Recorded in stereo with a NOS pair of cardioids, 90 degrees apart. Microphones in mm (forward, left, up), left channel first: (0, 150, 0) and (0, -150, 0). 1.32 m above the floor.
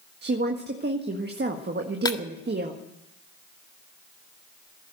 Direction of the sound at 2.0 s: 15° left.